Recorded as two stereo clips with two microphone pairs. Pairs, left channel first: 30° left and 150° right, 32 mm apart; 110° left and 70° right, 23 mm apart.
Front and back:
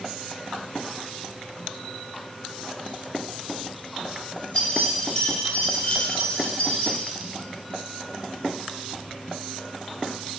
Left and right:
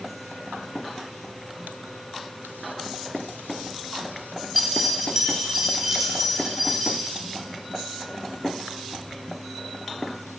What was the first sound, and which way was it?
Keys jangling, 25° left.